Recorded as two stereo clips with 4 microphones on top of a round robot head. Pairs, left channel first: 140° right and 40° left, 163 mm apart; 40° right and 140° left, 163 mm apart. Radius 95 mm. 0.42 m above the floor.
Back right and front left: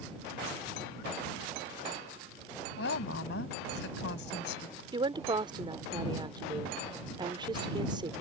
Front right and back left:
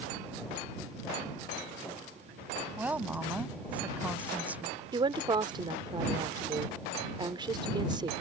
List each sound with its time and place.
2.8 s a woman speaking: 140° right
4.9 s a woman speaking: 90° left